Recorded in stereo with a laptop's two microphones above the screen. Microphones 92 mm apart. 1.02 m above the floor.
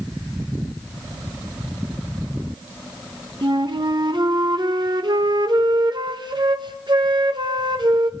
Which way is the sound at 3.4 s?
55° right (ahead or behind).